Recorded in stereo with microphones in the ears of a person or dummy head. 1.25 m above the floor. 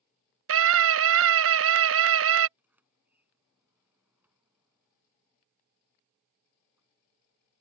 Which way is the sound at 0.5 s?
70° right (ahead or behind).